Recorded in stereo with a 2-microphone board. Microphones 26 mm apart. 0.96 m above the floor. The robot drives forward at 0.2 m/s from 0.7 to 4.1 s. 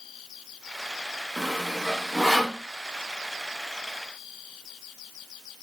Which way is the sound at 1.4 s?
10° right (ahead or behind).